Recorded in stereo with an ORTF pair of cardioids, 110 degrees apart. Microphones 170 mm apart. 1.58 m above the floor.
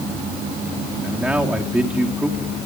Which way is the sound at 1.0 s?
5° right.